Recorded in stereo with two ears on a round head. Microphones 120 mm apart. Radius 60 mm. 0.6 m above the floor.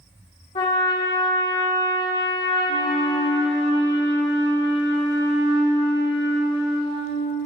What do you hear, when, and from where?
0.6 s a trumpet: 45° left (ahead or behind), 2 m
2.7 s a flute: 35° right (ahead or behind), 2 m